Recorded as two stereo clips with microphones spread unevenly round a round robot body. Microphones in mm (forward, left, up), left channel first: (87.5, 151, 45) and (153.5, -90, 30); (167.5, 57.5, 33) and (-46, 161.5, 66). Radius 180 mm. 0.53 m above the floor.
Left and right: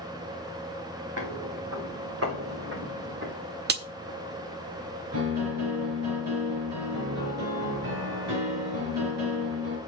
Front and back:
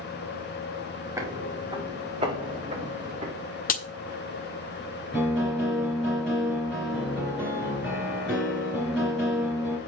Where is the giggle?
No giggle in this recording.